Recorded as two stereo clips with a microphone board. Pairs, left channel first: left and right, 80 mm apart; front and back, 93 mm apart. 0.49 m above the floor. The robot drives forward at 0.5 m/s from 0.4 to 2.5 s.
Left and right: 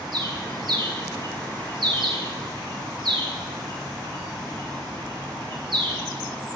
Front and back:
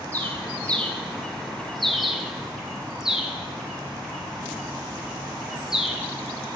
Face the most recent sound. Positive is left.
turn(degrees=-95)